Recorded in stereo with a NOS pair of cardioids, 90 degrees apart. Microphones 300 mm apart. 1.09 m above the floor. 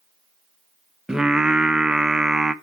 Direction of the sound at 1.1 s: 5° right.